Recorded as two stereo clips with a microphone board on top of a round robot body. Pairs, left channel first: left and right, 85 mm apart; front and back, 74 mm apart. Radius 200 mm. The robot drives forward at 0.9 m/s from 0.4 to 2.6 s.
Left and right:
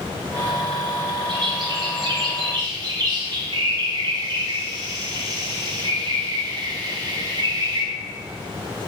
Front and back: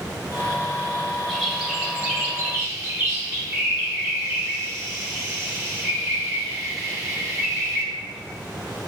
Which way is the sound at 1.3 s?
90° right.